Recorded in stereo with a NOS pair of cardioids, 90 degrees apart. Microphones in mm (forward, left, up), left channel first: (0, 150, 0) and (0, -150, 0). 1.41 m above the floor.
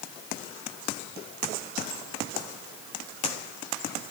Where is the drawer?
No drawer in this recording.